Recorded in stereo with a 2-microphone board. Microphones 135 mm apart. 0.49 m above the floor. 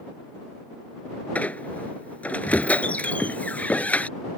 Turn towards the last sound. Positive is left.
turn(degrees=10)  # may be behind; listen again after turning